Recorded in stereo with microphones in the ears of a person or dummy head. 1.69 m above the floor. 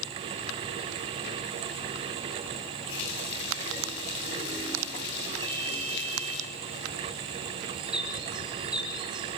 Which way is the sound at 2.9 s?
65° left (ahead or behind).